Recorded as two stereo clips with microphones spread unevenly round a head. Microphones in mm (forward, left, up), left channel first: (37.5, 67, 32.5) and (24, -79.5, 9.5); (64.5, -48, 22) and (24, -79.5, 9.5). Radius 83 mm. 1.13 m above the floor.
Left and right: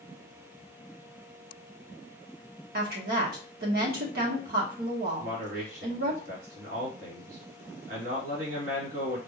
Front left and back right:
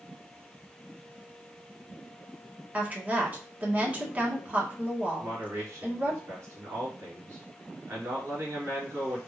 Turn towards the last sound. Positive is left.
turn(degrees=-130)